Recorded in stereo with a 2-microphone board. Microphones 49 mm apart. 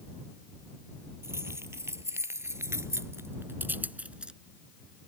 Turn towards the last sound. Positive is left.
turn(degrees=-20)  # may be behind; listen again after turning